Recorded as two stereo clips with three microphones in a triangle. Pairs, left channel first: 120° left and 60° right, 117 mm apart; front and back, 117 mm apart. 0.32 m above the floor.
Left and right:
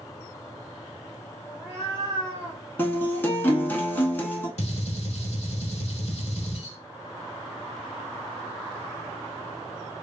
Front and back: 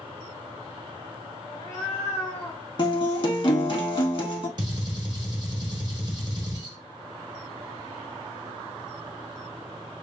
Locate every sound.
1.4 s a cat meowing: 20° left, 1.2 m; by 2.6 s 55° right, 1.0 m
2.8 s a guitar: 45° left, 0.7 m
4.6 s a gunshot: 130° left, 0.7 m